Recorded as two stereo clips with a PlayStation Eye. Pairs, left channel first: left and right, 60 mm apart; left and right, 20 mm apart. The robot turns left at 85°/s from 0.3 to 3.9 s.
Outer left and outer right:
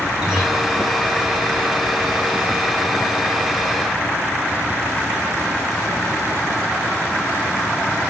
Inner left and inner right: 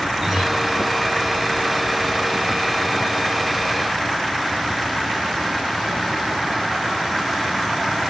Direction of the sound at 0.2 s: 15° right (ahead or behind).